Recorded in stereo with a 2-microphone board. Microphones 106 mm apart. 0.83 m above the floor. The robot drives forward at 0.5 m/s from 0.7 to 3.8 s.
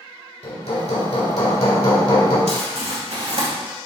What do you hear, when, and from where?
0.4 s hammering: 85° left, 2 m; by 2.4 s 65° left (ahead or behind), 2 m
2.5 s crumpling: 85° right, 2.0 m; by 3.5 s 75° right (ahead or behind), 2 m